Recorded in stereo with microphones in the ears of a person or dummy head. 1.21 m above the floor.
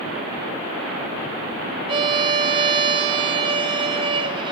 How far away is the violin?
About 1.4 m.